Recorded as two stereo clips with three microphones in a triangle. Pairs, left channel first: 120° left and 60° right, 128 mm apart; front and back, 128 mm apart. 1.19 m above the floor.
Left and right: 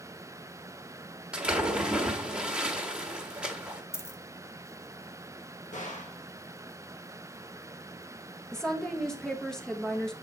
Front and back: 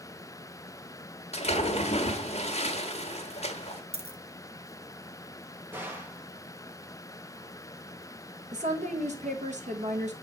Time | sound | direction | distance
1.3 | a splash | 20° left | 1.3 m
3.9 | a dropped coin | straight behind | 0.8 m
5.7 | a gunshot | 105° left | 1.6 m
8.5 | a woman speaking | 155° right | 1.2 m